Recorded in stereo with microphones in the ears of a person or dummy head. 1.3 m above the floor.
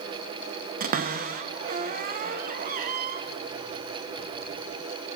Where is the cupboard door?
50° right (ahead or behind), 1.1 m.